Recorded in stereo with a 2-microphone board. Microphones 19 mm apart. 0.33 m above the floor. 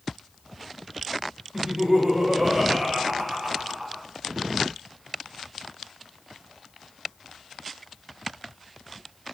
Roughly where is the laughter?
Right.